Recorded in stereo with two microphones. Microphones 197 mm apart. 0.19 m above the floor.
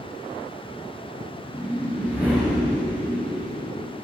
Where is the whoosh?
5° right (ahead or behind), 3.5 m.